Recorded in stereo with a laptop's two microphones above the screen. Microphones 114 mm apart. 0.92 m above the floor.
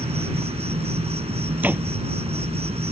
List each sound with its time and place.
0.0 s an insect: 65° right (ahead or behind)
1.6 s a door slam: 15° right (ahead or behind)